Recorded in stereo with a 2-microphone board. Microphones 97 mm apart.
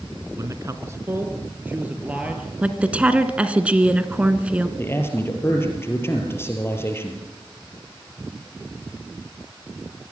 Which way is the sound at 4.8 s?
25° left (ahead or behind).